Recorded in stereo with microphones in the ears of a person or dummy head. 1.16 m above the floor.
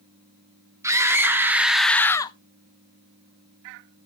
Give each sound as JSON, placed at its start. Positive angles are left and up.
{"t": 0.8, "sound": "a scream", "side_deg": -20, "distance_m": 1.3}